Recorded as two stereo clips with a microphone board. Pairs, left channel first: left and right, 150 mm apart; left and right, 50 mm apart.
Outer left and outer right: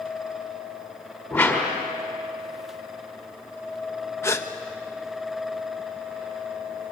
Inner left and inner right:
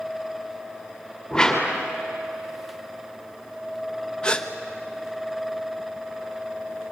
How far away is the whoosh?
About 5 m.